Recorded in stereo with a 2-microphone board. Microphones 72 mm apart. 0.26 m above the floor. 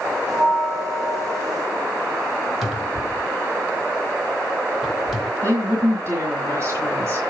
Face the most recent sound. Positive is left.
turn(degrees=-40)  # may be behind; listen again after turning